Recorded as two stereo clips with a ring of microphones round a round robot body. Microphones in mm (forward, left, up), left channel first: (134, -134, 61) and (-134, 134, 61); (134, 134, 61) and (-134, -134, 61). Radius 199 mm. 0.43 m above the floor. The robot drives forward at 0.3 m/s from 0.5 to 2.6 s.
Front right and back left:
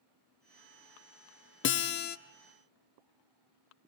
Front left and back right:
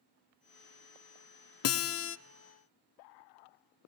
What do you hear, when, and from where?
1.6 s a guitar: 5° left, 0.8 m; by 2.2 s 10° left, 0.7 m